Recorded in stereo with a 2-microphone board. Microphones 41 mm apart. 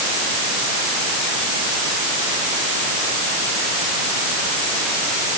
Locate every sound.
Only background noise.